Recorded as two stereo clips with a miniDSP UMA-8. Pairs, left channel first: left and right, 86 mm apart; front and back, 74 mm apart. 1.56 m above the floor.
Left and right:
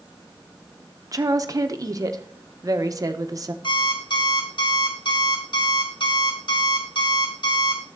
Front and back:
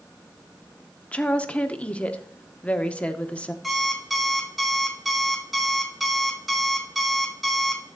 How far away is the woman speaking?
About 0.7 m.